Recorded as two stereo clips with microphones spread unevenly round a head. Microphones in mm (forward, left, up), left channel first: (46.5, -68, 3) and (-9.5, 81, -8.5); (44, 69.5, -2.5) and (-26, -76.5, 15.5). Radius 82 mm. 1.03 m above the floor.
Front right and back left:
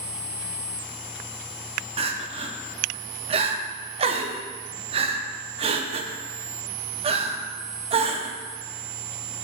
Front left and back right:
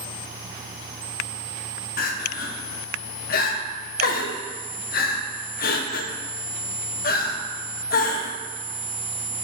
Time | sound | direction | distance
2.0 | crying | 70° left | 0.5 m